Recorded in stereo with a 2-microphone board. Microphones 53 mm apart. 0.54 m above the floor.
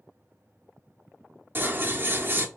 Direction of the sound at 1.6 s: 40° right (ahead or behind).